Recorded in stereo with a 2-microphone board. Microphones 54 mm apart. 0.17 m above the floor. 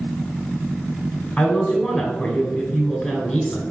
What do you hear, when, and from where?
1.4 s a woman speaking: 15° left (ahead or behind), 1.0 m